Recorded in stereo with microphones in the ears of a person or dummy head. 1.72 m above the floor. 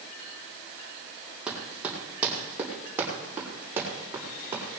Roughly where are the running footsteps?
Centre.